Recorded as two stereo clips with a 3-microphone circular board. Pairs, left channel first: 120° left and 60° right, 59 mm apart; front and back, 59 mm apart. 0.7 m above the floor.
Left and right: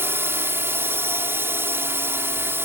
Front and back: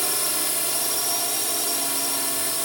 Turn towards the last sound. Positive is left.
turn(degrees=-90)